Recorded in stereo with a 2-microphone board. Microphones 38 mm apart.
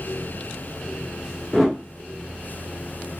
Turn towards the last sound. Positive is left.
turn(degrees=5)  # may be behind; listen again after turning